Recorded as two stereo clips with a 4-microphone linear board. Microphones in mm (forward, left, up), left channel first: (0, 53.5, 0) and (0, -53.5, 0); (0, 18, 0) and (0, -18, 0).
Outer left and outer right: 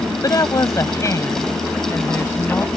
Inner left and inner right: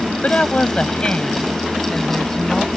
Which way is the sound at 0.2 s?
35° left (ahead or behind).